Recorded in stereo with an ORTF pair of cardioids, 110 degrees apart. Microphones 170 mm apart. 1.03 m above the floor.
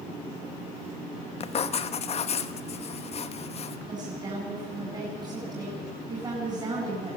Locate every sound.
1.4 s writing: 40° left, 1.2 m
3.9 s a woman speaking: 25° right, 8.5 m